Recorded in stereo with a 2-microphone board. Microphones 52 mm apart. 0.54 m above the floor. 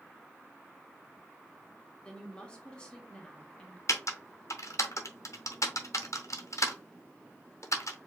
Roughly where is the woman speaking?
Centre.